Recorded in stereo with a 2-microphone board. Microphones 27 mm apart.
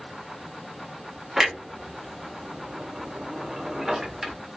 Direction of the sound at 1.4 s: 20° right (ahead or behind).